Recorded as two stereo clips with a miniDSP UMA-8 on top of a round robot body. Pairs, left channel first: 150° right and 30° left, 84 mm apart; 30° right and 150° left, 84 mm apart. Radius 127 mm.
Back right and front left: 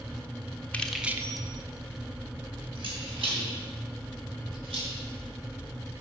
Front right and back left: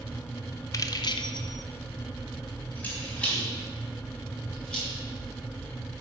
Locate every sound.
0.7 s keys jangling: 75° right, 1.0 m; by 4.9 s 50° left, 5.5 m